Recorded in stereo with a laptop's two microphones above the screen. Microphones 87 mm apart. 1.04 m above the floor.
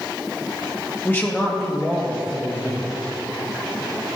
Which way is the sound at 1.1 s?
25° left (ahead or behind).